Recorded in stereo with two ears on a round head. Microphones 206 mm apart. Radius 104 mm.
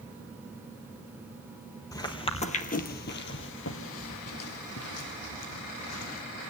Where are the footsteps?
15° left (ahead or behind), 1.6 m; by 6.2 s 70° left (ahead or behind), 3.5 m.